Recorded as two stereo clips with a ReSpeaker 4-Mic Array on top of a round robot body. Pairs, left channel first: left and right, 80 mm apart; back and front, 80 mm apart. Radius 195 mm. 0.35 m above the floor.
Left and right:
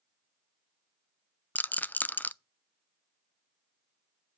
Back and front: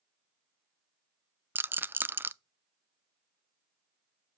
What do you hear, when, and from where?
1.6 s a rattle: 40° left, 0.6 m